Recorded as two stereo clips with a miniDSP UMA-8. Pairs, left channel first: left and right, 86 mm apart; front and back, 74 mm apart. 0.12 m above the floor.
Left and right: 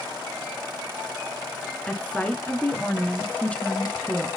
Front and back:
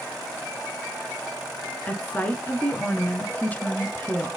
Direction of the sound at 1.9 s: 35° left.